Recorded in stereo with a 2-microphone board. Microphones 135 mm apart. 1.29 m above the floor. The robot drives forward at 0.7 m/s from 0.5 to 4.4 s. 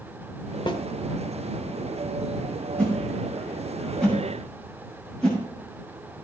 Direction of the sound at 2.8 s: 5° left (ahead or behind).